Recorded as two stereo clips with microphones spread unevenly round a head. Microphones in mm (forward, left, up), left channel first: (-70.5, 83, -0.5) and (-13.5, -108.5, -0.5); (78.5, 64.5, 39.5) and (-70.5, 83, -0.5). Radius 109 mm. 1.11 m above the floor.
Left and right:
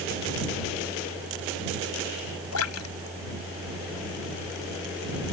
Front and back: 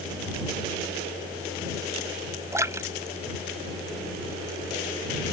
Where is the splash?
100° left.